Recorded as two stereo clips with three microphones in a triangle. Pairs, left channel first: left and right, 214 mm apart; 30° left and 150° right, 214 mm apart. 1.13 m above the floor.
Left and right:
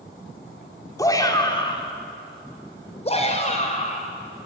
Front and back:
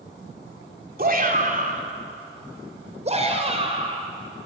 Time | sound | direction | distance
1.0 | a shout | 165° left | 3 m